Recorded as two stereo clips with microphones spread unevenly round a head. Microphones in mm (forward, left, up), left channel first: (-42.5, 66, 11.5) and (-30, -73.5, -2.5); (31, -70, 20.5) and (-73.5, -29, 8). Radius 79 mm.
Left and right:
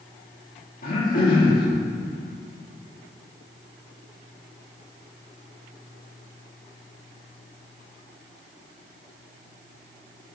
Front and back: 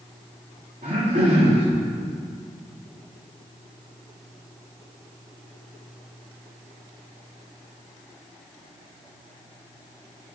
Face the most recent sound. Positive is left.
turn(degrees=120)